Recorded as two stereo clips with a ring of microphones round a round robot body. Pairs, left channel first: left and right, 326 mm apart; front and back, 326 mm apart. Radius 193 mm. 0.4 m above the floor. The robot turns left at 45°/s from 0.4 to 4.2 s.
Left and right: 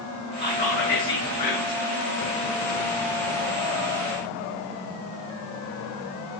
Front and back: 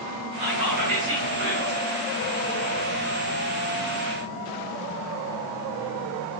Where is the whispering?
165° left, 7 m; by 1.8 s 100° left, 7 m.